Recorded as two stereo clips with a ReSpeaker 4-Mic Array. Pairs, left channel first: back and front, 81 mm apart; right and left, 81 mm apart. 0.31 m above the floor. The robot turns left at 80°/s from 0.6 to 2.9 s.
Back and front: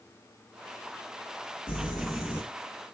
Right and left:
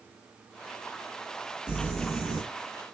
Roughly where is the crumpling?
Behind.